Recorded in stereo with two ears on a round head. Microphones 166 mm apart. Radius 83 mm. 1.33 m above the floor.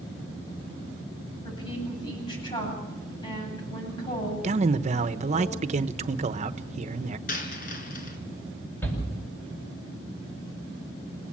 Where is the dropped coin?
50° left (ahead or behind), 3 m.